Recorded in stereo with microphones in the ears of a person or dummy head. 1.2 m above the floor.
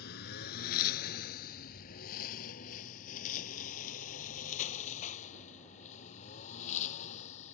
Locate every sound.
0.0 s a lawn mower: 60° left (ahead or behind); by 7.5 s 40° left (ahead or behind)